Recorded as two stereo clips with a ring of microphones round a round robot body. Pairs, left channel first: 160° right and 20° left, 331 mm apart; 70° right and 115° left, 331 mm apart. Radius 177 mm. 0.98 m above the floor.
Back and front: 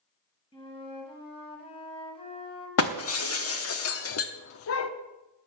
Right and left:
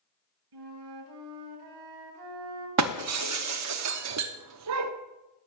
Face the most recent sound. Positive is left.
turn(degrees=155)